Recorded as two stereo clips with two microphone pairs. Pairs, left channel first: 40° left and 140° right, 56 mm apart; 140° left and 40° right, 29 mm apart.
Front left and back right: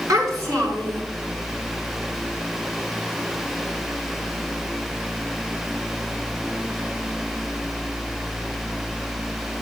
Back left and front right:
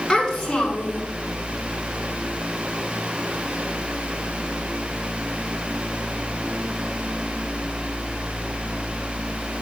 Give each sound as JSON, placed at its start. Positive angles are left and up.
{"t": 0.1, "sound": "a child speaking", "azimuth_deg": -150, "distance_m": 4.5}